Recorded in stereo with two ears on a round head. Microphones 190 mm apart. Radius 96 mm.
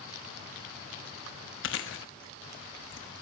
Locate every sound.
1.6 s chewing: 60° left (ahead or behind), 1.2 m